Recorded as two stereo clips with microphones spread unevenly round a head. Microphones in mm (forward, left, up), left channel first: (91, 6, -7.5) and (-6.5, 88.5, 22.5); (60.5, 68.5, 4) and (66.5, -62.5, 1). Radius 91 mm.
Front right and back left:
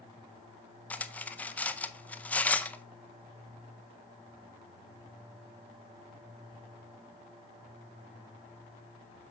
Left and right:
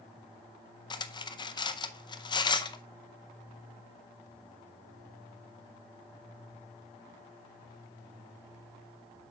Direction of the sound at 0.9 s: 45° left.